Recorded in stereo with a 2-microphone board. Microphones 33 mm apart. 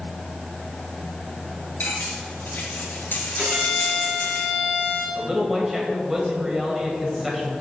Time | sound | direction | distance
1.8 | cutlery clinking | 60° left (ahead or behind) | 2.5 m
3.4 | a violin | 45° right (ahead or behind) | 3 m
5.2 | a man speaking | 5° right (ahead or behind) | 1.5 m